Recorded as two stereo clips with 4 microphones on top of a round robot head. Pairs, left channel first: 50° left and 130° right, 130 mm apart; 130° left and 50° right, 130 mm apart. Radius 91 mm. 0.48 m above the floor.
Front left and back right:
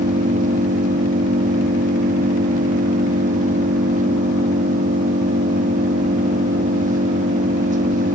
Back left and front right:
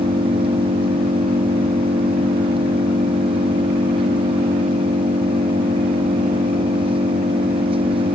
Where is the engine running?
105° right.